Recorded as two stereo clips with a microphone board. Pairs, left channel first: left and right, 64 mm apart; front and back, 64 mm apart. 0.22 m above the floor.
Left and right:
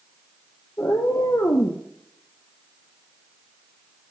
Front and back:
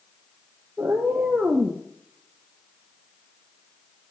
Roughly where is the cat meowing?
Behind left.